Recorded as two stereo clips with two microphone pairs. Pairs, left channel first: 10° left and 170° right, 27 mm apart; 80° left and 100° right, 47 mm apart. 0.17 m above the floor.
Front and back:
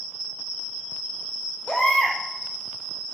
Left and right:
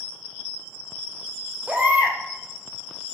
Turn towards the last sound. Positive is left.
turn(degrees=-50)